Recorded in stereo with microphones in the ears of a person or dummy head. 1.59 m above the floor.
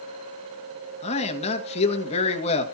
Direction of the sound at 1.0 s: 35° left (ahead or behind).